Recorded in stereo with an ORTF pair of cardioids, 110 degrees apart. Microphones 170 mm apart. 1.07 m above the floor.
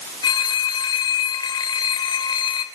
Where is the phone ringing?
25° left, 3 m.